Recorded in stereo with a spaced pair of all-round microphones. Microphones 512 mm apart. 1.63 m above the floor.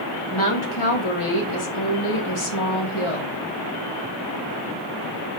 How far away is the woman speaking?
About 2 m.